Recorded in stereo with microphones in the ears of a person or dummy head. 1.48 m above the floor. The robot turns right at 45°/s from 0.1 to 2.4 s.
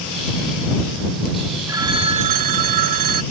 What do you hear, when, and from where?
1.7 s a phone ringing: 160° right; by 3.2 s 125° right